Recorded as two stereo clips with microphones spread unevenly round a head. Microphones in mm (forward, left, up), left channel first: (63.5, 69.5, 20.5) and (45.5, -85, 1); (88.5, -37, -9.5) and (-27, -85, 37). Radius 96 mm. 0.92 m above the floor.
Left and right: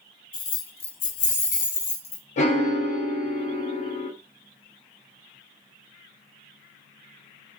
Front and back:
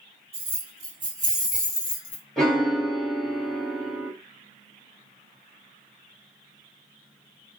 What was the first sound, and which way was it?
Keys jangling, 135° left.